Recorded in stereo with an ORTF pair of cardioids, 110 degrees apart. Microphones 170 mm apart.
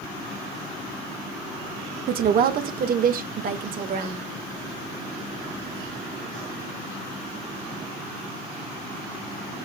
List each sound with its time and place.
2.1 s a woman speaking: 60° right, 1.2 m; by 4.2 s 55° right, 2.5 m